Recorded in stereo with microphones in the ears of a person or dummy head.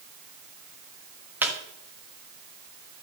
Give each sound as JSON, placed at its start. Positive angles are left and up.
{"t": 1.4, "sound": "a squeak", "side_deg": -10, "distance_m": 1.3}